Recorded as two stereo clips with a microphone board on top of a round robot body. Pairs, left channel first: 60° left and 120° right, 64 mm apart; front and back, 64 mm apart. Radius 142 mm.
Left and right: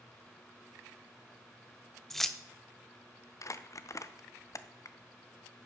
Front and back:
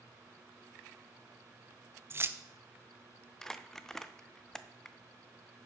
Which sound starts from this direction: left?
Crumpling, at 3.4 s.